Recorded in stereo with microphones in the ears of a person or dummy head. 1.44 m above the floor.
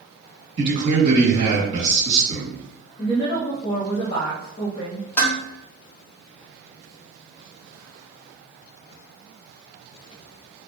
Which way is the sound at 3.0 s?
30° left (ahead or behind).